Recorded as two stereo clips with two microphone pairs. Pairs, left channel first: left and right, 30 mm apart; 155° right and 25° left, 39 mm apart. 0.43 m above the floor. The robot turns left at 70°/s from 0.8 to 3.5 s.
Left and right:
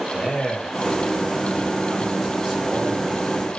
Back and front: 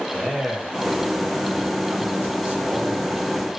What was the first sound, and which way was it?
A man speaking, 110° left.